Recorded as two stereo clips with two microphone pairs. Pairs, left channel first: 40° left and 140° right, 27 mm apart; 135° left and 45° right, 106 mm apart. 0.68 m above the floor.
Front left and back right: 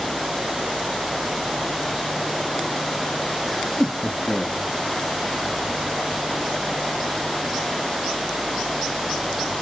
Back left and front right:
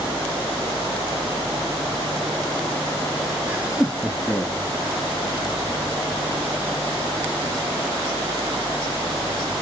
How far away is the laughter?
About 0.8 m.